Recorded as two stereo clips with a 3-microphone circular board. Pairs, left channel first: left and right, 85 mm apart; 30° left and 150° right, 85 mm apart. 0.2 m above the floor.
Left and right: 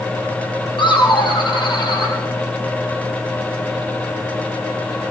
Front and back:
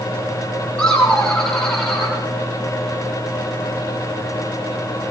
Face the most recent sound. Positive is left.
turn(degrees=115)